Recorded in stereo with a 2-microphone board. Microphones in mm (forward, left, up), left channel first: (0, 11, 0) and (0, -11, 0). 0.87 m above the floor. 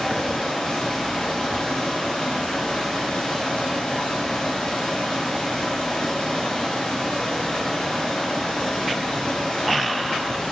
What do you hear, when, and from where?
0.0 s running water: 75° left (ahead or behind), 4 m